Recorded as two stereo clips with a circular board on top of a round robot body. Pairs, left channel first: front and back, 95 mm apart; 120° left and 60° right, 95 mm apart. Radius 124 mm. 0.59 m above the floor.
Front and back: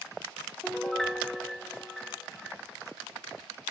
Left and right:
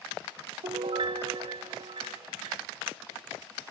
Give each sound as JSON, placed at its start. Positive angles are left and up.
{"t": 0.6, "sound": "a piano", "azimuth_deg": -85, "distance_m": 1.1}